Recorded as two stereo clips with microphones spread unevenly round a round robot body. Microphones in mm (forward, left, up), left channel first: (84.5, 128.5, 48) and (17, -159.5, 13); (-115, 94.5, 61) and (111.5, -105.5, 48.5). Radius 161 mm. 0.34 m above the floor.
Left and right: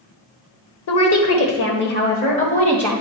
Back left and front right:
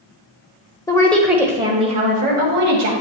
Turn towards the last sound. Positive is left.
turn(degrees=0)